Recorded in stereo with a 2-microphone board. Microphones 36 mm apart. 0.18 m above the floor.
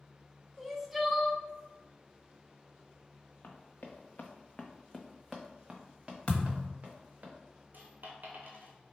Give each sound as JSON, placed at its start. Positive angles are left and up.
{"t": 0.6, "sound": "crying", "side_deg": -5, "distance_m": 0.5}
{"t": 3.4, "sound": "running footsteps", "side_deg": 75, "distance_m": 1.0}
{"t": 6.3, "sound": "a thud", "side_deg": 35, "distance_m": 1.2}
{"t": 7.7, "sound": "a dropped coin", "side_deg": -60, "distance_m": 0.9}